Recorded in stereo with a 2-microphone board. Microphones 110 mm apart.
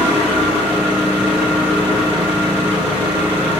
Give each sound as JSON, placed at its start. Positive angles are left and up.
{"t": 0.0, "sound": "an engine running", "side_deg": -10, "distance_m": 1.8}